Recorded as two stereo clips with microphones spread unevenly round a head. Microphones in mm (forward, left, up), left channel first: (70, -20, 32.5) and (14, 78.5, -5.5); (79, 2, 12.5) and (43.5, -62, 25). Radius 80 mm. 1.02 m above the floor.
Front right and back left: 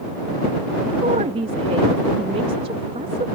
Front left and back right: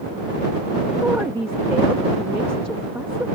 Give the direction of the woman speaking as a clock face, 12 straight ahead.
7 o'clock.